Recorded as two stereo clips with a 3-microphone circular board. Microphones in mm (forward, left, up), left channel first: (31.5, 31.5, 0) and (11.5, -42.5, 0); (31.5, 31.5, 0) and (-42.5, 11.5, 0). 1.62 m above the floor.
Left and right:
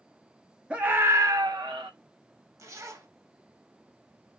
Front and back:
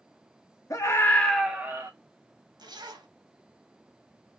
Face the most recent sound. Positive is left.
turn(degrees=-150)